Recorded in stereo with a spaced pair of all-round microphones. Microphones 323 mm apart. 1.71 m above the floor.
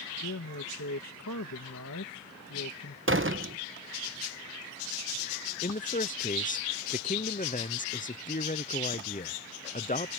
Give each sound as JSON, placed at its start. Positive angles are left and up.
{"t": 0.2, "sound": "a man speaking", "side_deg": 65}
{"t": 3.1, "sound": "a door slam", "side_deg": -40}
{"t": 5.6, "sound": "a man speaking", "side_deg": 25}